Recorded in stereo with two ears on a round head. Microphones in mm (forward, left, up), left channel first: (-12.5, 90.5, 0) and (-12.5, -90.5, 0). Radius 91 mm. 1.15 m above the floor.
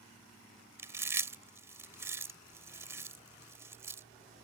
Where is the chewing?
15° right (ahead or behind).